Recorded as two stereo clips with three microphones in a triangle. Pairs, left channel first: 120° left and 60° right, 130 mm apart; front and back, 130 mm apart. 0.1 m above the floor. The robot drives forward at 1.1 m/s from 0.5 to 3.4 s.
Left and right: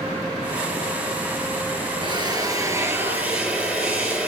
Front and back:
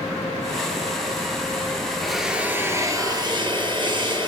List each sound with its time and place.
2.0 s a drill: 85° right, 1.9 m; by 4.3 s 135° right, 2.5 m